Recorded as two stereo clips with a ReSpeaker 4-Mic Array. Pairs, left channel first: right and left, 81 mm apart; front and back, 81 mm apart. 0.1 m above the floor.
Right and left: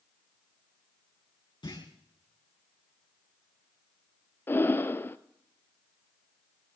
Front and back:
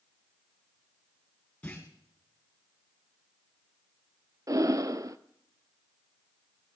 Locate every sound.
1.6 s a clunk: 70° right, 4.5 m
4.5 s breathing: 145° right, 0.6 m